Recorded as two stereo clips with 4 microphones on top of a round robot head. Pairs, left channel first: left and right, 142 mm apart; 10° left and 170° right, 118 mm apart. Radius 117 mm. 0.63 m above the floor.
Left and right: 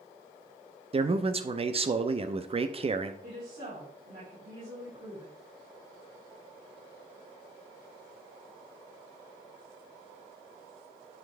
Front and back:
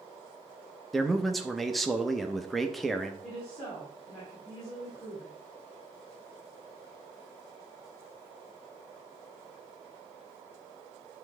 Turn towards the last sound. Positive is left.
turn(degrees=-75)